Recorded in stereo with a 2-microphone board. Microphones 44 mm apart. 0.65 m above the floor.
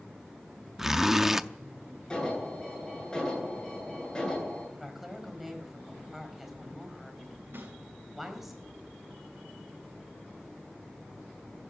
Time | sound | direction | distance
0.8 | a zipper | 10° right (ahead or behind) | 0.6 m
2.1 | an alarm | 20° left (ahead or behind) | 10 m
4.8 | a woman speaking | 5° right (ahead or behind) | 4 m
7.5 | a snare drum | 60° right (ahead or behind) | 5 m